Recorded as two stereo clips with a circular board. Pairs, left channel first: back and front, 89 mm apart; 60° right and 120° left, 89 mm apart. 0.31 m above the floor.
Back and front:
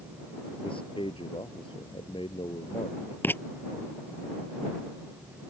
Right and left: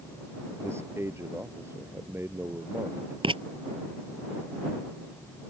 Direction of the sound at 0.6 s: Straight behind.